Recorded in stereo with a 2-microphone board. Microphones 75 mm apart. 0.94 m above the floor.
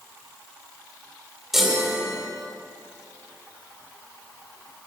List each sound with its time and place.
1.5 s a chime: 5° right (ahead or behind), 2 m